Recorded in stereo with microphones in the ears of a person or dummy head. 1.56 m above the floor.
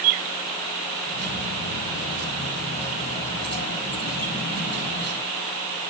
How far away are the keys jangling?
About 6 m.